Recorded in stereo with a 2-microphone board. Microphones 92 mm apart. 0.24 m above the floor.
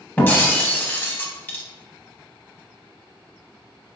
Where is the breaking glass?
20° left (ahead or behind), 0.5 m.